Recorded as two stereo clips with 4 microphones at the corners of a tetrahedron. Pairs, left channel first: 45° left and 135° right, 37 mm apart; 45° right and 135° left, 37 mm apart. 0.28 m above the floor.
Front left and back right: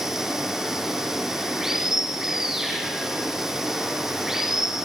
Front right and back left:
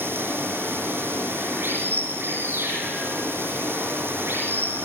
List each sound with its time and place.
0.0 s running water: 150° left, 6.5 m